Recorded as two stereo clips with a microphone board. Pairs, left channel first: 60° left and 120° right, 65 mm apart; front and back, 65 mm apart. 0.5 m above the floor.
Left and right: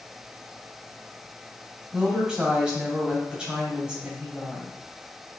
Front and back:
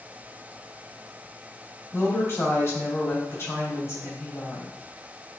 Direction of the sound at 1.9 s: 45° right.